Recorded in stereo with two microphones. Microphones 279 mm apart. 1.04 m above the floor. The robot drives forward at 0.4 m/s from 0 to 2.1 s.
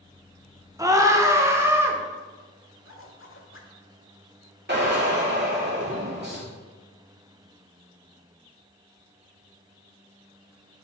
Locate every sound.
0.8 s a scream: 10° right (ahead or behind), 0.9 m
2.8 s a zipper: 50° left (ahead or behind), 1.0 m
4.7 s a drill: 35° right (ahead or behind), 2 m